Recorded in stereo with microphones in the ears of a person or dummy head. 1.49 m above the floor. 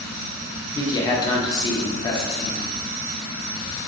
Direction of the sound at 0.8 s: 25° left (ahead or behind).